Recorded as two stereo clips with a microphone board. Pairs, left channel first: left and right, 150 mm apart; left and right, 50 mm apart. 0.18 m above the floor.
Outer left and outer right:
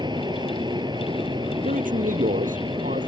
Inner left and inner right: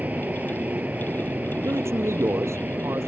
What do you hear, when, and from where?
0.0 s an aircraft: 30° right (ahead or behind)
1.6 s a man speaking: 70° right (ahead or behind)